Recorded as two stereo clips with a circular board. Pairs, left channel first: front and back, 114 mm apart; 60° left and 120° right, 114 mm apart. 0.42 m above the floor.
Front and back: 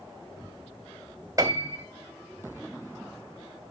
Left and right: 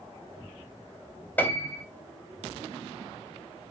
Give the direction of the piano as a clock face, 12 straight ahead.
8 o'clock.